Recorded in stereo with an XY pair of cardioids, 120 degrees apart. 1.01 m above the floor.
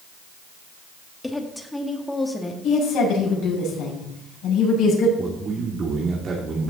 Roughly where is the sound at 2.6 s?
Ahead left.